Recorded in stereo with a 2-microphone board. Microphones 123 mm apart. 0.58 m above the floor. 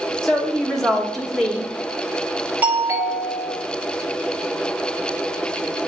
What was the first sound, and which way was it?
A woman speaking, 5° left (ahead or behind).